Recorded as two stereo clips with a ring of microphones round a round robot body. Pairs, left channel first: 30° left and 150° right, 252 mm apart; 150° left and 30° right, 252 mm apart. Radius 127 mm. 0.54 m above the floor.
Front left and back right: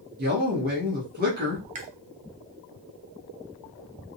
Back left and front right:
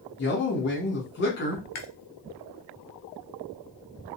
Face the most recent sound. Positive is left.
turn(degrees=150)